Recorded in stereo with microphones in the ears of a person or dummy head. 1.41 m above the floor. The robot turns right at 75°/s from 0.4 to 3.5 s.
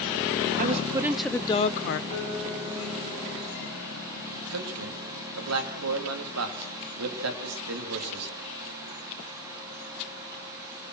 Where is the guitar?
140° left, 6 m; by 4.3 s 115° right, 6 m.